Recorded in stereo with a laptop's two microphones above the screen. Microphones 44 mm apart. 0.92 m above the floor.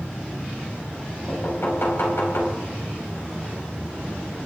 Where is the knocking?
65° left (ahead or behind), 4.5 m.